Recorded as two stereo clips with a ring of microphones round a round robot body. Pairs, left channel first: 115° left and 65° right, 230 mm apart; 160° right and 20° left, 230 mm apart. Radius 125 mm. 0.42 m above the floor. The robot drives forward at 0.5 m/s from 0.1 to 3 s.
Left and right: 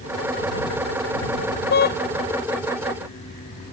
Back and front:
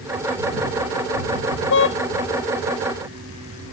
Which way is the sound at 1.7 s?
165° left.